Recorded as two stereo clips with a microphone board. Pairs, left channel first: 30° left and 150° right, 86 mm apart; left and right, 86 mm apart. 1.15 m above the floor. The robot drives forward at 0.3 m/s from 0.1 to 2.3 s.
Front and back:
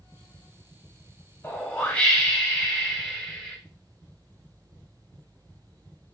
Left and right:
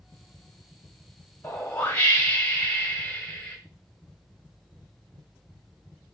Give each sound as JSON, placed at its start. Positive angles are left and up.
{"t": 1.4, "sound": "a whoosh", "azimuth_deg": 75, "distance_m": 0.8}